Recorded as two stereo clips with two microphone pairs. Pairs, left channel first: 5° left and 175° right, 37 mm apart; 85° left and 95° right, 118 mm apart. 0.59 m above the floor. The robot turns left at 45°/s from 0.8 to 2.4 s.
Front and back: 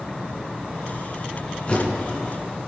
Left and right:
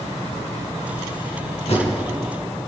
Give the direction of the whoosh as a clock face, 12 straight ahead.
10 o'clock.